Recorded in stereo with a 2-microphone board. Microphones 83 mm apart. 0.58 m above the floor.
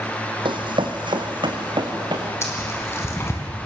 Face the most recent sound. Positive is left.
turn(degrees=30)  # may be behind; listen again after turning